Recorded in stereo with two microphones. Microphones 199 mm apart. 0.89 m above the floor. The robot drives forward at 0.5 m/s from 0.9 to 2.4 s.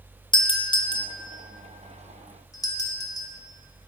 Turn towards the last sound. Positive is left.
turn(degrees=20)  # may be behind; listen again after turning